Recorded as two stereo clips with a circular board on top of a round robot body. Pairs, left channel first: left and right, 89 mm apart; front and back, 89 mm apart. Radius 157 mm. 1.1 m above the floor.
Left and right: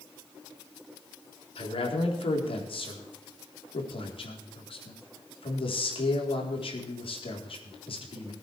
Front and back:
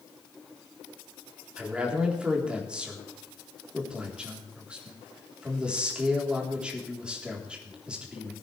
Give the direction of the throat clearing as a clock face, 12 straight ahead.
No throat clearing in this recording.